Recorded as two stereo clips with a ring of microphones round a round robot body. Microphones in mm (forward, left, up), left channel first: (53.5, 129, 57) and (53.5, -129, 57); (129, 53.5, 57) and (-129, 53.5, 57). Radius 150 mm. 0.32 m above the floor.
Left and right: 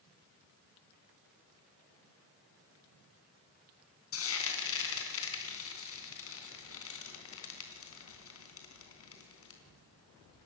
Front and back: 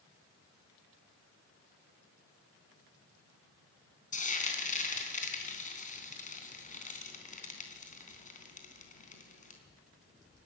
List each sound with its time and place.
4.1 s frying: 60° left, 3.5 m